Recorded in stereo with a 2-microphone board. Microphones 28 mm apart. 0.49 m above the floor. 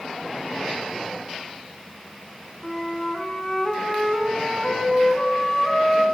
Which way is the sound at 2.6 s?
15° left (ahead or behind).